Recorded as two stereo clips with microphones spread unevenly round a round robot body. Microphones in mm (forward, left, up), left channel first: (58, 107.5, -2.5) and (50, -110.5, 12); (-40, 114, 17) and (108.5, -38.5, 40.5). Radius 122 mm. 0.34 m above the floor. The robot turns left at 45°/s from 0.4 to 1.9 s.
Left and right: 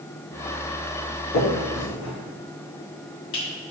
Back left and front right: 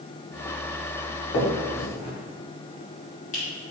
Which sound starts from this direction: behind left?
A finger snap, at 1.3 s.